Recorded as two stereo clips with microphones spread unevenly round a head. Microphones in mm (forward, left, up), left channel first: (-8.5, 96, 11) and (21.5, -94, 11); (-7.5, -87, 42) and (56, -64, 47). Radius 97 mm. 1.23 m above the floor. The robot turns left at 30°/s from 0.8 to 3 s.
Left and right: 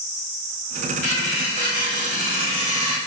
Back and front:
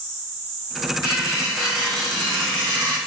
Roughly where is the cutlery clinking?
Left.